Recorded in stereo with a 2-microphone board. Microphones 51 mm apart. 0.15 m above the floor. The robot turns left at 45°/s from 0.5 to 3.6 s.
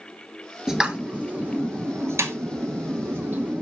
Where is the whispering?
I don't hear whispering.